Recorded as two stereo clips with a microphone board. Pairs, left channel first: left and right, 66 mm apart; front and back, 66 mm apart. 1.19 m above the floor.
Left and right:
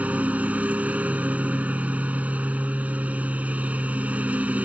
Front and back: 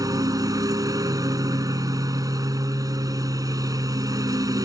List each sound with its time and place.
0.0 s a lawn mower: 155° right